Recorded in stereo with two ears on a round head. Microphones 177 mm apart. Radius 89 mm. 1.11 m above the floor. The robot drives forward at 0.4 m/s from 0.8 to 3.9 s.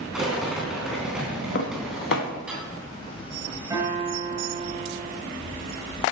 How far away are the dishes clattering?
About 1.1 m.